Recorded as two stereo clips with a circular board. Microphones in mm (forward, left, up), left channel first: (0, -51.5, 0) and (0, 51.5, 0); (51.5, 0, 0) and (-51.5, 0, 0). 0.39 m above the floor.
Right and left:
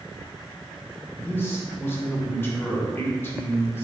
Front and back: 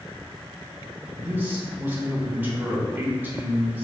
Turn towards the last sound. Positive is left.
turn(degrees=-130)